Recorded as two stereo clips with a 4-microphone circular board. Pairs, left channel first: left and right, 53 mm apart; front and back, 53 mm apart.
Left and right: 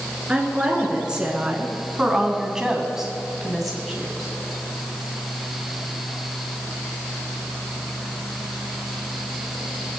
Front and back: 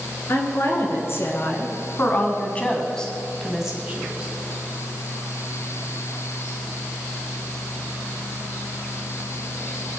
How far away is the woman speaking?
About 3 m.